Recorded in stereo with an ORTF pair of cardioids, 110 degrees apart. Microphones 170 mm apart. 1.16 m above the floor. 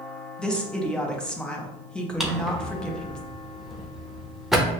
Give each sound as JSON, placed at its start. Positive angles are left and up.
{"t": 0.4, "sound": "a woman speaking", "azimuth_deg": 5, "distance_m": 0.9}
{"t": 2.2, "sound": "a drawer", "azimuth_deg": 0, "distance_m": 0.6}